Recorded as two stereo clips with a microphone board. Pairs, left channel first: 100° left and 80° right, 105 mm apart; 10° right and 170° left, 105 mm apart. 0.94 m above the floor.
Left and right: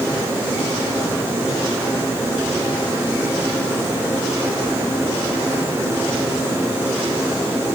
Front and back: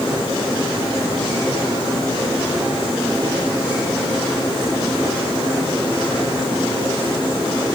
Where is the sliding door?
I don't hear a sliding door.